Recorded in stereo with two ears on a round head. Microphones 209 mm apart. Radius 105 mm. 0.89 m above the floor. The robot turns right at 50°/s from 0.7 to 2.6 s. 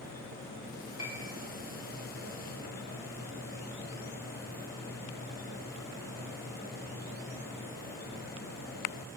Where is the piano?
25° left (ahead or behind), 3.5 m; by 1.3 s 40° left (ahead or behind), 3.5 m.